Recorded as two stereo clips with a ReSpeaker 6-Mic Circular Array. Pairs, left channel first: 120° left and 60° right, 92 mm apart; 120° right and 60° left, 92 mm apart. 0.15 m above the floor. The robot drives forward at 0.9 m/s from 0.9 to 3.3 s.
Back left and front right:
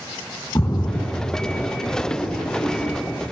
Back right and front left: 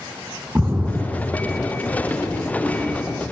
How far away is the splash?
About 1.6 m.